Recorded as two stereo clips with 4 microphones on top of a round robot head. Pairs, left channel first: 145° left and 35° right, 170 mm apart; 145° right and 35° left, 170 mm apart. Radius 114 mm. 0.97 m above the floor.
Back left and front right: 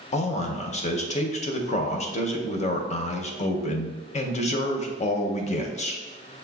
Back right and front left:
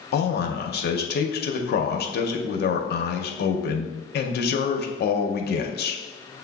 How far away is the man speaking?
About 0.6 m.